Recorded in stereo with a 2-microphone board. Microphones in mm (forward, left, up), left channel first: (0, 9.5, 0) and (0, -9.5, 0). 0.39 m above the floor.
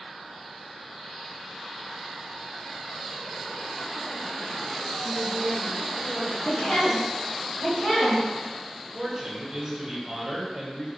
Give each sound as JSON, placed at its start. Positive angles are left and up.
{"t": 5.0, "sound": "a woman speaking", "side_deg": -20, "distance_m": 1.2}
{"t": 6.4, "sound": "a woman speaking", "side_deg": 55, "distance_m": 1.4}
{"t": 8.9, "sound": "a man speaking", "side_deg": -15, "distance_m": 1.0}